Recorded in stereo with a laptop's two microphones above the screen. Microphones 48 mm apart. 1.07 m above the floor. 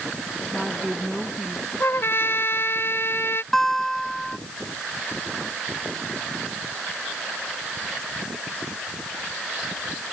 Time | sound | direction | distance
0.5 | a woman speaking | centre (ahead or behind) | ?
1.8 | a trumpet | 55° left (ahead or behind) | ?
3.5 | a guitar | 10° left (ahead or behind) | ?